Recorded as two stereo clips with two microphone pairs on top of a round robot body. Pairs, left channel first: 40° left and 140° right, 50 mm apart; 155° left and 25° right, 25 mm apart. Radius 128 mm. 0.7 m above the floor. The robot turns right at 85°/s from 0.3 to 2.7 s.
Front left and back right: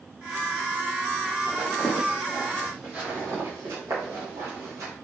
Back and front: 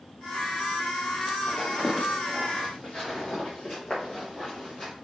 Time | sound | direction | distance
1.5 | footsteps | 65° right | 0.9 m